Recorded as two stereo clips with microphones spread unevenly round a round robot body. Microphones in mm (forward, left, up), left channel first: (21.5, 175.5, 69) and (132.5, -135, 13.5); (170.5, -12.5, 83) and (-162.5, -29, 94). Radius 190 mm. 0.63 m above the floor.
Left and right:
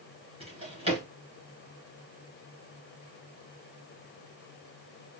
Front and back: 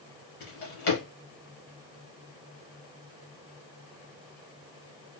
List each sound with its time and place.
0.4 s a drawer: 5° left, 2.5 m